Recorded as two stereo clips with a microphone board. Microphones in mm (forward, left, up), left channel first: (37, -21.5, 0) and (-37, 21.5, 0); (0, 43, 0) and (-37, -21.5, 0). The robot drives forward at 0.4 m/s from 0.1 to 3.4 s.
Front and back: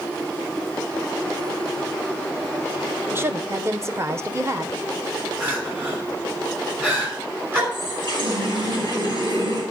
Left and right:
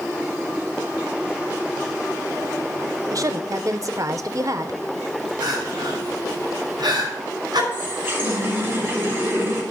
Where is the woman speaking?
150° right, 0.6 m; by 4.8 s 155° right, 0.7 m.